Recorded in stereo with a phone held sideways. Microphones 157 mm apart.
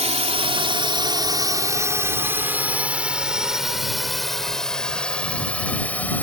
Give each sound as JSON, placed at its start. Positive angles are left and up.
{"t": 0.0, "sound": "a drone", "side_deg": -45}